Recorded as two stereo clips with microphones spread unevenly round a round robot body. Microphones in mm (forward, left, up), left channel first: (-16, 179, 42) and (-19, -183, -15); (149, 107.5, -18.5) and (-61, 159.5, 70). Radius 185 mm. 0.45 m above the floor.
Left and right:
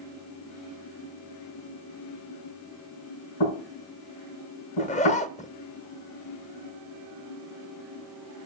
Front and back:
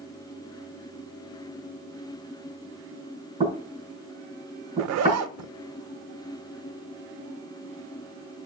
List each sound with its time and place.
3.4 s knocking: 105° left, 4.5 m
4.8 s a zipper: 165° left, 0.5 m